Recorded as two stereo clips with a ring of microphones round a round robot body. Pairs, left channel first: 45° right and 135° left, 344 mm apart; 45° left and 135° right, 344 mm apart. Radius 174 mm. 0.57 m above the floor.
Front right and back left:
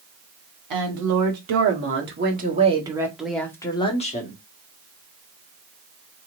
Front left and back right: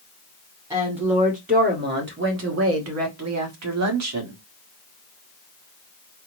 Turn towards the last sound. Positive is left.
turn(degrees=-105)